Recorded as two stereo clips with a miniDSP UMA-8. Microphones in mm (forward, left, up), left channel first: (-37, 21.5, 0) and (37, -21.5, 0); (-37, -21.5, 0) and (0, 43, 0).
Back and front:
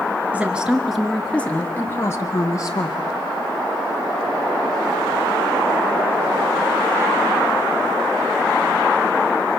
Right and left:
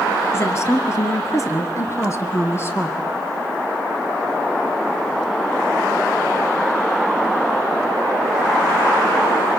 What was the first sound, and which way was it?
A woman speaking, 95° right.